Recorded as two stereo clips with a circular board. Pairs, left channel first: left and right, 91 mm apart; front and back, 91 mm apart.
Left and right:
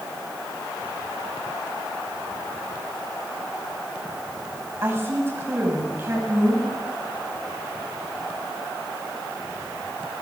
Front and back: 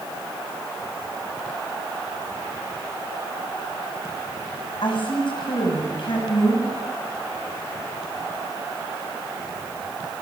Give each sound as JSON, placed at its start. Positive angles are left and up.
{"t": 4.8, "sound": "a woman speaking", "azimuth_deg": -25, "distance_m": 6.5}